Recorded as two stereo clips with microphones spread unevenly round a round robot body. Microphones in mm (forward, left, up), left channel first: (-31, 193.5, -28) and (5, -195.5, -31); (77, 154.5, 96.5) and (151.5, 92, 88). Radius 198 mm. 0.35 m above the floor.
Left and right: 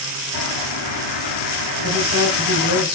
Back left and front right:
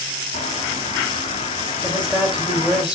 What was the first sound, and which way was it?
A bird, 130° left.